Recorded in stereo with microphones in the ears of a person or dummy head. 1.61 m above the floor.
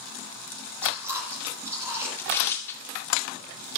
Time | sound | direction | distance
0.8 | chewing | 15° right (ahead or behind) | 7 m
2.2 | tearing paper | 10° left (ahead or behind) | 1.8 m